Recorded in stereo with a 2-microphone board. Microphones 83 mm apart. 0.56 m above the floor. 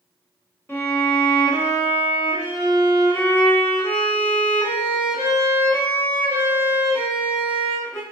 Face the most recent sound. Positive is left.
turn(degrees=30)  # may be behind; listen again after turning